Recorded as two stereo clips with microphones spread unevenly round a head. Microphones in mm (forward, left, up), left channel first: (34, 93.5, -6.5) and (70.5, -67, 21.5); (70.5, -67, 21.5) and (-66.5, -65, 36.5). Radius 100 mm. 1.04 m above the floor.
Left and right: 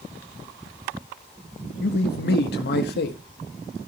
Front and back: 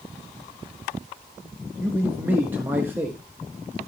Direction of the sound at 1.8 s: 100° left.